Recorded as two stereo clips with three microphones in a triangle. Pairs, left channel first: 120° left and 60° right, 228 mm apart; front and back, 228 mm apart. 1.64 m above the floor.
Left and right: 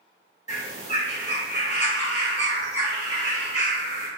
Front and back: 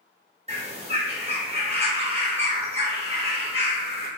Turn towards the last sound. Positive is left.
turn(degrees=145)